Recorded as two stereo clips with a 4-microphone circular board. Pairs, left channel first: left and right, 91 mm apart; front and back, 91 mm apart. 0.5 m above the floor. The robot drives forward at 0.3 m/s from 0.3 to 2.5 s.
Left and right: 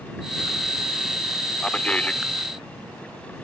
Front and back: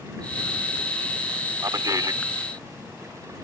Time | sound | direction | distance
1.6 | a man speaking | 160° left | ?